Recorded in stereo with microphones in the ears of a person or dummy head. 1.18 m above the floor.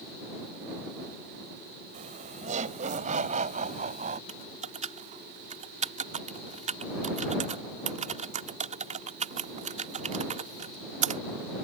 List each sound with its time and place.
1.9 s laughter: 35° right (ahead or behind)
4.3 s typing on a keyboard: 45° right (ahead or behind)